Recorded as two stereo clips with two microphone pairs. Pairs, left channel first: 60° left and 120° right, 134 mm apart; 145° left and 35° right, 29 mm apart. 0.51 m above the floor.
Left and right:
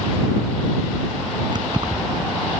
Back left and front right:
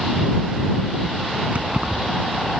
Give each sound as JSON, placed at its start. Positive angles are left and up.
{"t": 1.5, "sound": "keys jangling", "azimuth_deg": -60}